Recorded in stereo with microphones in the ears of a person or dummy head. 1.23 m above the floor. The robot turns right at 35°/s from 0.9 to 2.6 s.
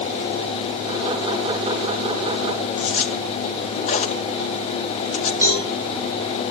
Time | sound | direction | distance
2.8 | a zipper | 35° left (ahead or behind) | 1.3 m
5.4 | a cowbell | 25° left (ahead or behind) | 8.5 m